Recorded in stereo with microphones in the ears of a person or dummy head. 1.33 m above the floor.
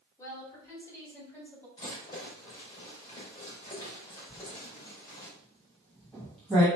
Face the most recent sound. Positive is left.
turn(degrees=5)  # may be behind; listen again after turning